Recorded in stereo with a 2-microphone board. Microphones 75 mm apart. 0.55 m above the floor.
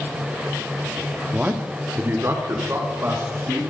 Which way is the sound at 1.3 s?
15° right (ahead or behind).